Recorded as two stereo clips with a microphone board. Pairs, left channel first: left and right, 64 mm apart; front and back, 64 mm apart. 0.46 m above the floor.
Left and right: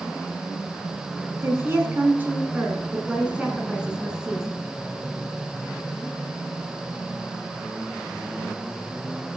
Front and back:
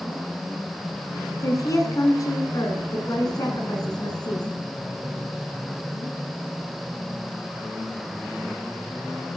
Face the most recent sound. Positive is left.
turn(degrees=-5)